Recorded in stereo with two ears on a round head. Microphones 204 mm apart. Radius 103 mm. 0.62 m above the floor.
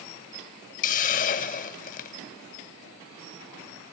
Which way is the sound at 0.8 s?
35° left (ahead or behind).